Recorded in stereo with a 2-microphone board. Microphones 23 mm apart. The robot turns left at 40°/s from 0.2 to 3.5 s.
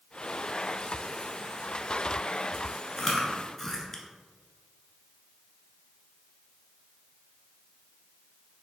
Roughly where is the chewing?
Centre.